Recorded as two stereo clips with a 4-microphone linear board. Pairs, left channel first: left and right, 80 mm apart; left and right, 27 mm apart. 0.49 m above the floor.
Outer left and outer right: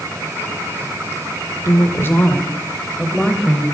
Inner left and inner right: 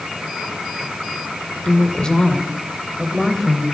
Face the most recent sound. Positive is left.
turn(degrees=0)  # may be behind; listen again after turning